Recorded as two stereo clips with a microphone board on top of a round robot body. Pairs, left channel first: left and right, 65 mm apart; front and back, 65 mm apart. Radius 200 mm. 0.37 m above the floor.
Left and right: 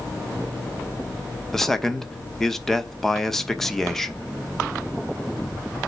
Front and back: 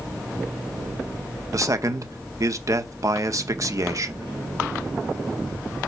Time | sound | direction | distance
1.5 | a man speaking | 175° left | 1.3 m